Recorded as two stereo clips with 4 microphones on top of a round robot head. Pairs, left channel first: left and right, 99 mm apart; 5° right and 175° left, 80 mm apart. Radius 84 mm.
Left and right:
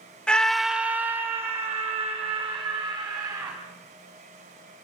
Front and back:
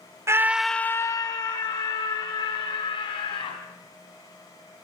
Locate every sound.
0.3 s a scream: 165° left, 0.7 m; by 3.6 s 20° right, 3 m